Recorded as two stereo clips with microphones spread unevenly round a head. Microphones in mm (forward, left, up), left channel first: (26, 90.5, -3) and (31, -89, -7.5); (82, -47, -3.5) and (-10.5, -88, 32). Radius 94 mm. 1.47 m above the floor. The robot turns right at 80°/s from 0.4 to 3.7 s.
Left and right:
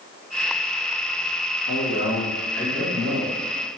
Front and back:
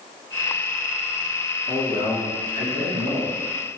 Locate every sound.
1.7 s a man speaking: 100° left, 1.5 m; by 3.4 s 125° right, 1.5 m